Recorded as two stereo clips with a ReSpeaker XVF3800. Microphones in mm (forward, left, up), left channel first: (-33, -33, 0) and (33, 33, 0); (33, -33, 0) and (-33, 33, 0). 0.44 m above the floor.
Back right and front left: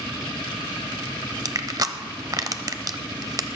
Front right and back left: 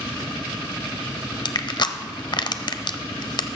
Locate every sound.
1.4 s crushing: 5° right, 0.5 m